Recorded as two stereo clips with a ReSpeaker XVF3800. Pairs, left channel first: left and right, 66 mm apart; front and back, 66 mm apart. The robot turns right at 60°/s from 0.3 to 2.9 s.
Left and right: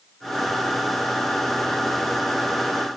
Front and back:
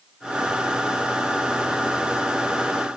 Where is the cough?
No cough in this recording.